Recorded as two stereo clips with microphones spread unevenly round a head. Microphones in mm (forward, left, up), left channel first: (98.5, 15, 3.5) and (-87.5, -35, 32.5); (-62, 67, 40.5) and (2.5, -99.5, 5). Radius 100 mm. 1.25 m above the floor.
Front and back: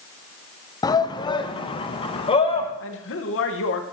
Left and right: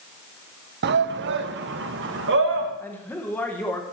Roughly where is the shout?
Ahead right.